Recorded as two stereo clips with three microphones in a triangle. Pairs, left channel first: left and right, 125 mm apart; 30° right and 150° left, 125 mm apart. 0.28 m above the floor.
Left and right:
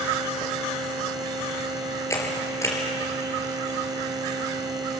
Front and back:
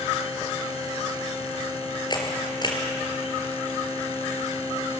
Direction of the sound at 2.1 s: 25° left.